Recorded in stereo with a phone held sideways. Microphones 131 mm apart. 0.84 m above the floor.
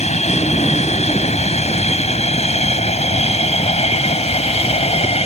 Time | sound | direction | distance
0.0 | an aircraft | 60° left (ahead or behind) | ?